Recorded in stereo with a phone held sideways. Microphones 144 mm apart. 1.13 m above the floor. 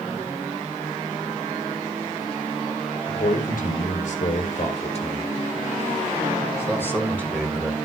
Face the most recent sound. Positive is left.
turn(degrees=0)  # may be behind; listen again after turning